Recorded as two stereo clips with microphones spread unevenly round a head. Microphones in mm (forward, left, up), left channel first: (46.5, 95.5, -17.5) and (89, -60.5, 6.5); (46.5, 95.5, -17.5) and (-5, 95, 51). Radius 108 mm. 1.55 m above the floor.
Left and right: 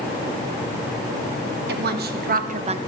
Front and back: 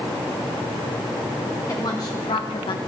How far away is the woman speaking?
About 1.4 m.